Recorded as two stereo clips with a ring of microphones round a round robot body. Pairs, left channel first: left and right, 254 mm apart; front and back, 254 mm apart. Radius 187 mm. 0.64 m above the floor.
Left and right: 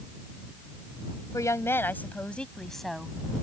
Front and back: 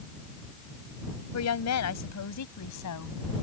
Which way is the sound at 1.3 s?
10° left.